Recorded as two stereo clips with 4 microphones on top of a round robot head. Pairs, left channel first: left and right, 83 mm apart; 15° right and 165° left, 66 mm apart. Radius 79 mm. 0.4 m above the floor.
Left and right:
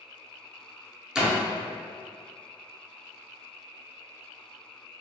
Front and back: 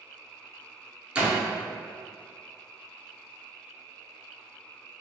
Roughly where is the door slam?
Behind.